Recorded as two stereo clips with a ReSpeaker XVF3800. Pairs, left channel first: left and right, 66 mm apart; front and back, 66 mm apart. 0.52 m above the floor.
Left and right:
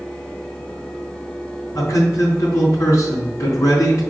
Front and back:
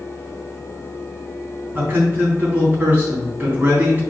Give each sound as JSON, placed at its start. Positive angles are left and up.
{"t": 1.8, "sound": "a man speaking", "azimuth_deg": 120, "distance_m": 3.5}